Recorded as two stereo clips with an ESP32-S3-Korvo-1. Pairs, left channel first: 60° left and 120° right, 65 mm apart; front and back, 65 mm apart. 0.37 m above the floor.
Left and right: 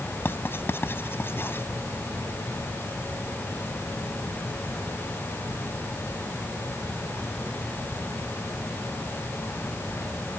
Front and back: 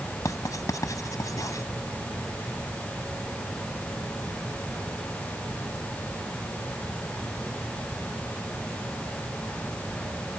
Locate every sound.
0.2 s writing: 15° left